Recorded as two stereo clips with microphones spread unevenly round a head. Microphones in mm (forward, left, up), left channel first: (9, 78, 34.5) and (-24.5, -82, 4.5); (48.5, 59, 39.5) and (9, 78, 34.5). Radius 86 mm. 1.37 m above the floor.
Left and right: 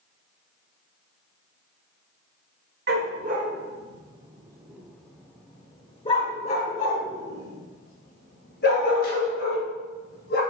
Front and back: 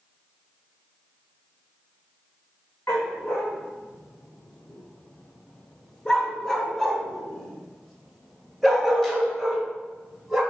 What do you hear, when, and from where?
2.9 s a dog barking: 75° right, 1.4 m; by 10.4 s 65° left, 3.5 m